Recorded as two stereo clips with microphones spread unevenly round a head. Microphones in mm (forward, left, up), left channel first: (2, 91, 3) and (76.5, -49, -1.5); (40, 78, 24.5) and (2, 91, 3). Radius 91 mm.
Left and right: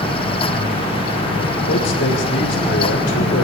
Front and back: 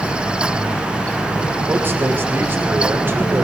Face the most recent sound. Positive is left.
turn(degrees=130)